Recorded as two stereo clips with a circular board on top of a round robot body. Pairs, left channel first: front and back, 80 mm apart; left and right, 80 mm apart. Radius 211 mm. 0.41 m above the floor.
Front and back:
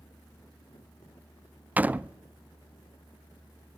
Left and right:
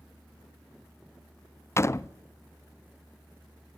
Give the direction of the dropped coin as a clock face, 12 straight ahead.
I don't hear a dropped coin.